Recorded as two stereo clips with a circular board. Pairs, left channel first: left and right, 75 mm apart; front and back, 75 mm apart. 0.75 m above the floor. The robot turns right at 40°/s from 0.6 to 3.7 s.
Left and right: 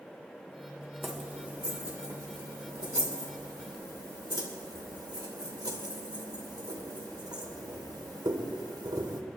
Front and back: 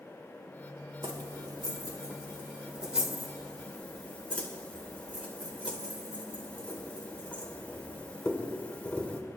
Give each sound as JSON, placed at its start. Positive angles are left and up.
{"t": 1.0, "sound": "keys jangling", "azimuth_deg": 180, "distance_m": 2.0}